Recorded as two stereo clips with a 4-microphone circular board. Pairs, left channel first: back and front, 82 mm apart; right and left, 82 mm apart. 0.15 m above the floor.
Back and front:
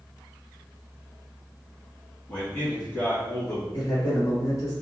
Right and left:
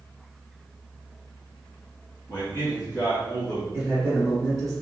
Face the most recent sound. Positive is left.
turn(degrees=175)